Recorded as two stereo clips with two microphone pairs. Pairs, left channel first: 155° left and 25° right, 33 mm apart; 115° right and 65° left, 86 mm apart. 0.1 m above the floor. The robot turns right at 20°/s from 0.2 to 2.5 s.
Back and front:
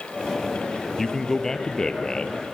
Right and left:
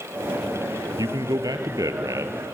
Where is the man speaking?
75° left, 1.6 m; by 2.5 s 105° left, 1.6 m.